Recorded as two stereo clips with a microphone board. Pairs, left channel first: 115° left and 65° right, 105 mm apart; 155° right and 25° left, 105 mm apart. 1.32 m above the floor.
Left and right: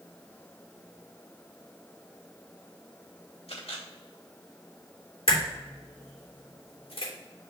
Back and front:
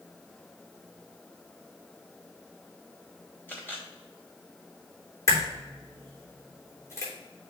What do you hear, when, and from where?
3.5 s a camera shutter: 130° left, 3 m
5.3 s a crack: 145° left, 3 m